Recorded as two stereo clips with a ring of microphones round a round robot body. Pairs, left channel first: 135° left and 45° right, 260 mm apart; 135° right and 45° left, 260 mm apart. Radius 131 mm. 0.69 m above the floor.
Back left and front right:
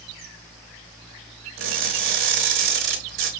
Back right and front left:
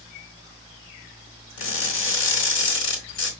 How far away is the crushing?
About 2 m.